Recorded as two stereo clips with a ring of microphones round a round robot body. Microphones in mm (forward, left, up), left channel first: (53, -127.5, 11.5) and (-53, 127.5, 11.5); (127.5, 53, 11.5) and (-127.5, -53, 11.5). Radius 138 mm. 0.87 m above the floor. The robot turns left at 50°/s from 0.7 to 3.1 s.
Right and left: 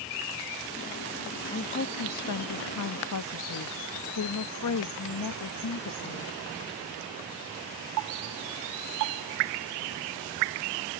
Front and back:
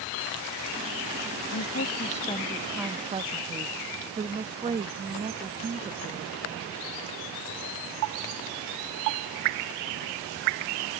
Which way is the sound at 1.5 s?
10° right.